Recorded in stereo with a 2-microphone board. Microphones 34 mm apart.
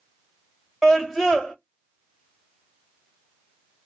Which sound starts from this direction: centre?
A scream, at 0.8 s.